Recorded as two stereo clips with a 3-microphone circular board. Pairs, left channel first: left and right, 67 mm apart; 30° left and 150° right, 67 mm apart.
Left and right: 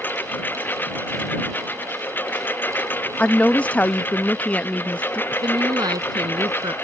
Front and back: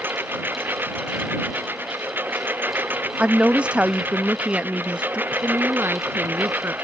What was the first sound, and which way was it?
A lawn mower, 150° left.